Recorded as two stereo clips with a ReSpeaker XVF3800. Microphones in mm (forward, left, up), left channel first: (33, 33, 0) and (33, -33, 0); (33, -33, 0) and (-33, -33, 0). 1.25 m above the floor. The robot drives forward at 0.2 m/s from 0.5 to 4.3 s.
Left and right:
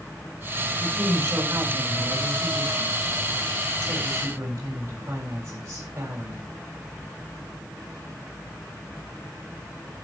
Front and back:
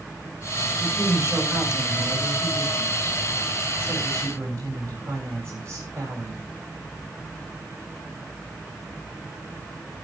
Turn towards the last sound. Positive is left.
turn(degrees=-140)